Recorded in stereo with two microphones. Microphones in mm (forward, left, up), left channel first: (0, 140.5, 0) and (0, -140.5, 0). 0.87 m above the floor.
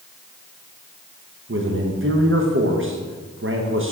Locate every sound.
1.5 s a man speaking: 45° right (ahead or behind), 0.7 m